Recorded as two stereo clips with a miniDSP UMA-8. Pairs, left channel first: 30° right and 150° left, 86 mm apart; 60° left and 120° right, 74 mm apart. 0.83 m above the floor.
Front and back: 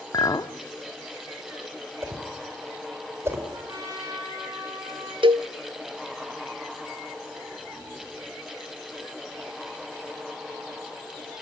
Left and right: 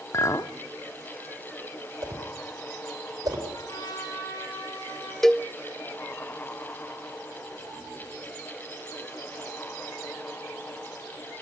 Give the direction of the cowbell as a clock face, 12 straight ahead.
7 o'clock.